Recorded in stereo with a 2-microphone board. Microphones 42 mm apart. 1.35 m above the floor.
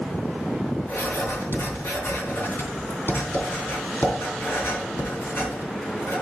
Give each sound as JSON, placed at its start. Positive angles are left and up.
{"t": 0.9, "sound": "writing", "side_deg": 70, "distance_m": 3.0}